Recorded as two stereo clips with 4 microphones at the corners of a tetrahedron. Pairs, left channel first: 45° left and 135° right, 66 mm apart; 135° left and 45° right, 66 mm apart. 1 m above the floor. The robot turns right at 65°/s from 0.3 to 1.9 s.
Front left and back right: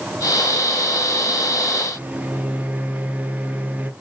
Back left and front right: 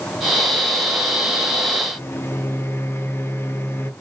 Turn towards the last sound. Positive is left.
turn(degrees=165)